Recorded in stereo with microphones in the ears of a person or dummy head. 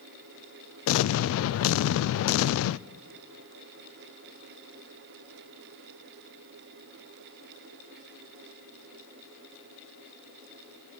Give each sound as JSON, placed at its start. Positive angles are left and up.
{"t": 0.9, "sound": "an explosion", "side_deg": 80, "distance_m": 0.5}